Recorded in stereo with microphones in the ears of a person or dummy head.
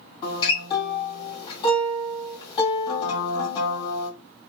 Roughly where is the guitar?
Left.